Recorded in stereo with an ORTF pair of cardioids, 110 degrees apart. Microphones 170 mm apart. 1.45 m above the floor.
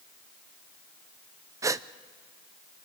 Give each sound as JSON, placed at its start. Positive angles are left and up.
{"t": 1.6, "sound": "a gasp", "azimuth_deg": -20, "distance_m": 0.6}